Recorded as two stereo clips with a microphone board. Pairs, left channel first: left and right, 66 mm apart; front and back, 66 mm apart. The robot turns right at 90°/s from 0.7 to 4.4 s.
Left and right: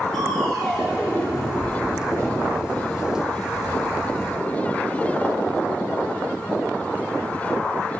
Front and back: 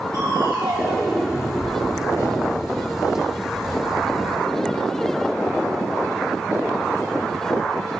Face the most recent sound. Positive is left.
turn(degrees=150)